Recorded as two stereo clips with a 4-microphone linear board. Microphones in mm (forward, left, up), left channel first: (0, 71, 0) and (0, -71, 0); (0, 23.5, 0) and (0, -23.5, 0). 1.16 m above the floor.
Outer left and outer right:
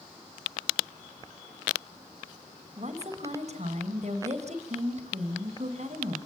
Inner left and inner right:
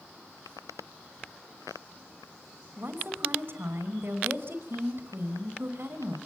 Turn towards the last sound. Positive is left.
turn(degrees=-50)  # may be behind; listen again after turning